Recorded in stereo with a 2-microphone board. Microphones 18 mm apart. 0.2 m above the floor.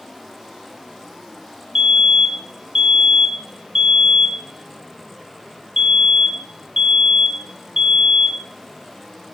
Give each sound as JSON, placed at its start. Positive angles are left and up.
{"t": 1.8, "sound": "a fire alarm", "side_deg": -40, "distance_m": 3.0}